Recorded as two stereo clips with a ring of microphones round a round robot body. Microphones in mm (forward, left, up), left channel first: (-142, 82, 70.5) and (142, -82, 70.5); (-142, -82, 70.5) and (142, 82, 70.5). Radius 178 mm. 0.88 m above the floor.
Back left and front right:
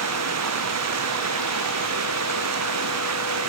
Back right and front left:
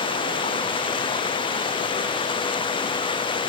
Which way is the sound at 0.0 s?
75° right.